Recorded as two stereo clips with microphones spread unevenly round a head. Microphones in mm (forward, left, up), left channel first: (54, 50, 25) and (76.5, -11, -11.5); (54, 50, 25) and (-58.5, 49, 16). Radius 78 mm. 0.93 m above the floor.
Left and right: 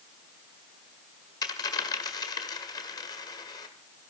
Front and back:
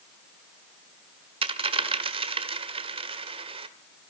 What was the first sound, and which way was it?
A dropped coin, 140° left.